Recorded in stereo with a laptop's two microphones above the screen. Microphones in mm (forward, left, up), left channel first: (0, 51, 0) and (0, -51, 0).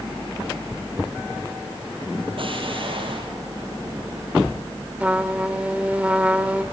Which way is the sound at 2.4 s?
60° right (ahead or behind).